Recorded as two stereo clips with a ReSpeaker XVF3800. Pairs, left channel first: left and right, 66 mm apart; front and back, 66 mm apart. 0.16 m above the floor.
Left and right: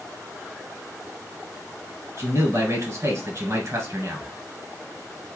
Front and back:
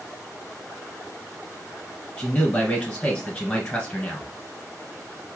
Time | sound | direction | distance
2.2 | a man speaking | 70° right | 1.9 m